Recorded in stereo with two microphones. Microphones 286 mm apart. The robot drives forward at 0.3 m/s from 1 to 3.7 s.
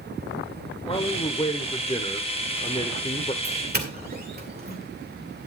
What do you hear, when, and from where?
0.8 s a man speaking: 15° left (ahead or behind), 1.0 m; by 3.3 s 20° left (ahead or behind), 1.0 m
3.4 s a doorbell: 35° right (ahead or behind), 2 m; by 4.8 s 30° right (ahead or behind), 2 m